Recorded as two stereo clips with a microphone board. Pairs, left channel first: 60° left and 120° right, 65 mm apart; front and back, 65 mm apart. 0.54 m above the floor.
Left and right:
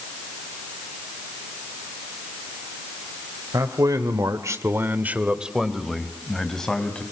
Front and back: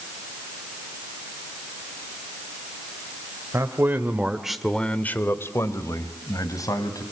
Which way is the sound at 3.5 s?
135° right.